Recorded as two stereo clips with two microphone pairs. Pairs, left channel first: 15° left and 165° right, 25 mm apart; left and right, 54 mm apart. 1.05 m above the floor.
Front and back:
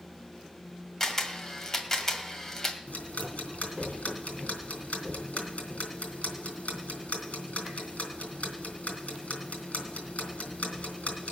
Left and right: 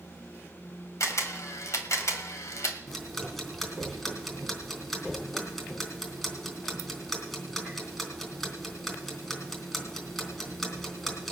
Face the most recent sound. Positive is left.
turn(degrees=5)